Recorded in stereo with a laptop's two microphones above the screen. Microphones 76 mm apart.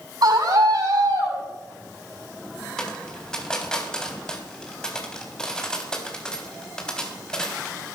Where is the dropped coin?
10° left (ahead or behind), 3.5 m.